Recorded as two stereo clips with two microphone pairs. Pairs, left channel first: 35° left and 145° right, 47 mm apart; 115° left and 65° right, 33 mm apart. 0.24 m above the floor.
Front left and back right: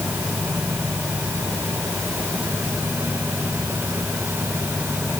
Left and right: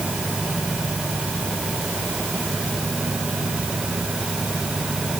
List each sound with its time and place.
Only background noise.